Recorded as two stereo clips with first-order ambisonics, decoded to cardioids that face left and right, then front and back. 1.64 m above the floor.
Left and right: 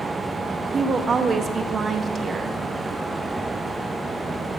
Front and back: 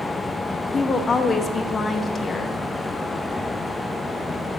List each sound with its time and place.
0.7 s a woman speaking: 50° right, 0.6 m